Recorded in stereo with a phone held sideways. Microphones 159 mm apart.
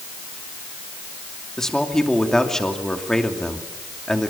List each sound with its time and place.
1.6 s a man speaking: 5° left (ahead or behind), 2.5 m